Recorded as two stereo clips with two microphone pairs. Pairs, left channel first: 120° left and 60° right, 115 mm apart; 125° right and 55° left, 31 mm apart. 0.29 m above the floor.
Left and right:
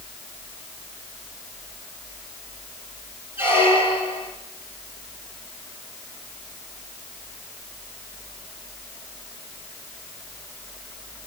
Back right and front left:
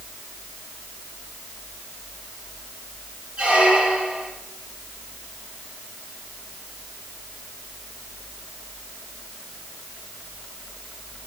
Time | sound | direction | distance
3.4 | a squeak | 10° left | 2.5 m